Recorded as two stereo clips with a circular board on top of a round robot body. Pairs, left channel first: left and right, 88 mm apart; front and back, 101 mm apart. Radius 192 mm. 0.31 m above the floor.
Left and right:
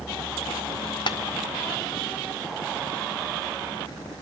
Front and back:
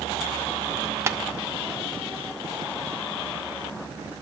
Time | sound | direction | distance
1.1 | tapping | 115° left | 0.6 m